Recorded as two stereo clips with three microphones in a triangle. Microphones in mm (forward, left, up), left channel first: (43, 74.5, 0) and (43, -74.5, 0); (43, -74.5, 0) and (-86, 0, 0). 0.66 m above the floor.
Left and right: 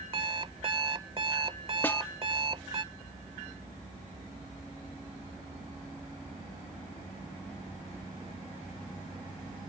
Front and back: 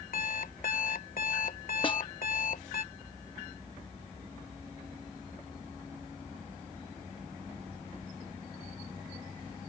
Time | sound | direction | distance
0.1 | an alarm clock | 40° right | ?
1.8 | a snare drum | 15° left | ?